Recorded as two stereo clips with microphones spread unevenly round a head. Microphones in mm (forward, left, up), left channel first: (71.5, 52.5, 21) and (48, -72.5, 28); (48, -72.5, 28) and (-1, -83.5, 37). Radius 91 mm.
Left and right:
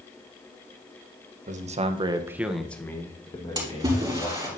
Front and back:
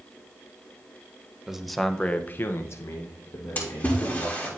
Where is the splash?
40° right, 4.5 m.